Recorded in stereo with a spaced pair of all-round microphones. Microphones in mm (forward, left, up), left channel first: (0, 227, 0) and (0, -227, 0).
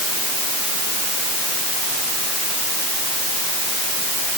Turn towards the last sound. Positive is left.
No sound to turn to.